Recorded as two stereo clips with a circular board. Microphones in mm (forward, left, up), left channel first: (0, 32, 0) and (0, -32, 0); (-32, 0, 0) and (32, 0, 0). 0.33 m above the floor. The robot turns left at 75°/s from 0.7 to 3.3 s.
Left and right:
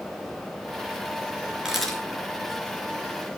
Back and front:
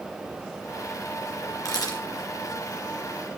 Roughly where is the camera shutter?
Behind.